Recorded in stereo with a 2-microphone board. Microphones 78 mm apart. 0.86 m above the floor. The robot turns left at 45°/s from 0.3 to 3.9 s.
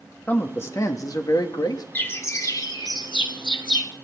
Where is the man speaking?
150° left, 1.4 m; by 1.9 s 80° left, 1.4 m.